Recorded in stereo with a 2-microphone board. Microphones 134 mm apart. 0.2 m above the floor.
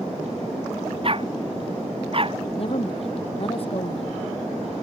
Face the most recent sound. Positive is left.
turn(degrees=50)  # may be behind; listen again after turning